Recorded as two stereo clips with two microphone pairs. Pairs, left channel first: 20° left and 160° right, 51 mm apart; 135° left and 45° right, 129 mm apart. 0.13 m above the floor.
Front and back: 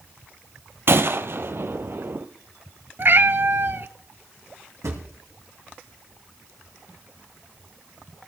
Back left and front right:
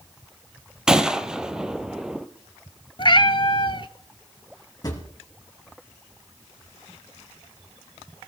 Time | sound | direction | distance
0.9 | a gunshot | 130° right | 0.9 m
3.0 | a cat meowing | 175° left | 0.7 m
4.8 | a drawer | 165° right | 3 m